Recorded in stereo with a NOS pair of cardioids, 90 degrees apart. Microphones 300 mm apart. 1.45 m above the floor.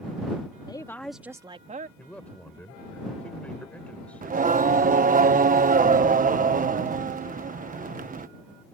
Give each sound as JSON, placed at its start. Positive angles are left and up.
{"t": 0.7, "sound": "a woman speaking", "azimuth_deg": 15}
{"t": 2.0, "sound": "a man speaking", "azimuth_deg": 5}
{"t": 4.2, "sound": "singing", "azimuth_deg": -25}